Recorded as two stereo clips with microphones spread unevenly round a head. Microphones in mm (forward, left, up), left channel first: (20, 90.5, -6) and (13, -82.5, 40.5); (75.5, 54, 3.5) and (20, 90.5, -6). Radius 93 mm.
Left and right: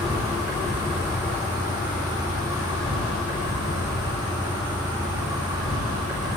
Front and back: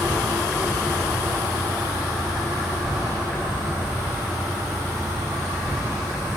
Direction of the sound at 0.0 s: 160° right.